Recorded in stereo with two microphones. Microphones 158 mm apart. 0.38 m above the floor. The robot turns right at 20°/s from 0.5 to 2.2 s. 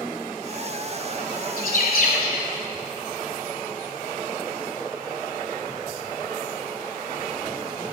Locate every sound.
1.6 s a bird: 65° left (ahead or behind), 1.7 m; by 2.5 s 75° left (ahead or behind), 1.7 m